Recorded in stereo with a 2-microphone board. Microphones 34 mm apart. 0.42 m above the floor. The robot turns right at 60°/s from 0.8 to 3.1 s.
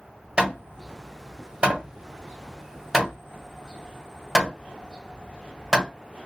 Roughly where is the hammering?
Right.